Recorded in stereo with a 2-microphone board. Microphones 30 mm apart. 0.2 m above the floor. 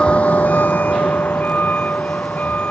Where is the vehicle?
35° left (ahead or behind); by 2.7 s 60° left (ahead or behind).